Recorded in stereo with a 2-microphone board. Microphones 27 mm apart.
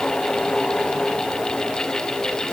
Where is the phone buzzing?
No phone buzzing in this recording.